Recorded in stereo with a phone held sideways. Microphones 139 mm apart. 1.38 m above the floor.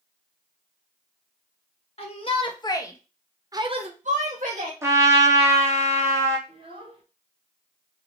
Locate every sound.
2.0 s a shout: 45° left (ahead or behind), 1.2 m; by 4.7 s 80° right, 1.1 m
4.8 s a trumpet: 20° right (ahead or behind), 0.8 m
6.5 s a child speaking: 40° right (ahead or behind), 1.2 m